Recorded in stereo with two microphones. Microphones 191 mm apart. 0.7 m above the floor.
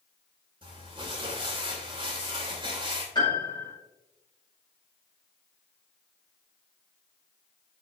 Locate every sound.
0.6 s crumpling: 25° right (ahead or behind), 3 m
3.1 s a piano: 25° left (ahead or behind), 4.5 m